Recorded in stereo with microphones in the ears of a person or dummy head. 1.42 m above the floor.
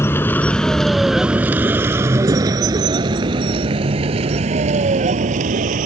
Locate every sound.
0.0 s a vehicle: 10° left (ahead or behind); by 5.9 s 45° right (ahead or behind)